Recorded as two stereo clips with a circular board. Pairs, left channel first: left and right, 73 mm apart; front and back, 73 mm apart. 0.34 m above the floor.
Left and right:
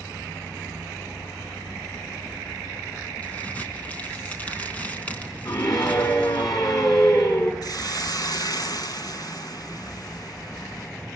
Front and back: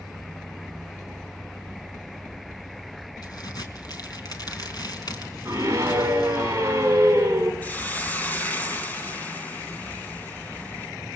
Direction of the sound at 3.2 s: 20° left.